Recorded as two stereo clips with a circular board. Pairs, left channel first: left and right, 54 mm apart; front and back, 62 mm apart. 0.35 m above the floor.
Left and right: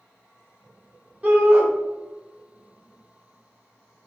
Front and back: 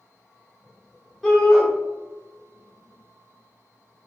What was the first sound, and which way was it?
A shout, 80° right.